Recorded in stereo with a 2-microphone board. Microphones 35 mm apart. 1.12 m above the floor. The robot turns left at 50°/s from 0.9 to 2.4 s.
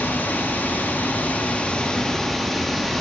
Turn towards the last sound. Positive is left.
turn(degrees=5)